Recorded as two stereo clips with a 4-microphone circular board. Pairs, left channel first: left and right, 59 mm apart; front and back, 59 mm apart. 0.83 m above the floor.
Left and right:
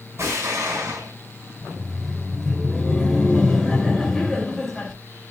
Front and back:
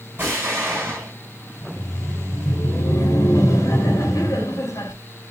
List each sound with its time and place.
0.2 s an explosion: 125° right, 6.5 m
1.6 s laughter: 10° left, 3.5 m